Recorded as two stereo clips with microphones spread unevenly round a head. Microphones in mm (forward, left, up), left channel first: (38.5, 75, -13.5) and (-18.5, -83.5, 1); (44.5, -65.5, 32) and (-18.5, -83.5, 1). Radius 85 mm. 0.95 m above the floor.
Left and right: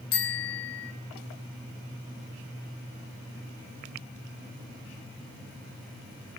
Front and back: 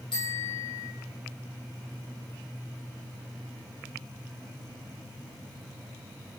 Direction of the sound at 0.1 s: 65° left.